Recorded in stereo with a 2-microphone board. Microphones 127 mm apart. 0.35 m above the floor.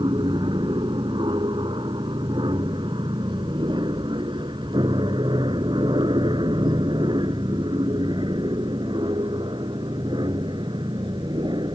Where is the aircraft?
40° right (ahead or behind).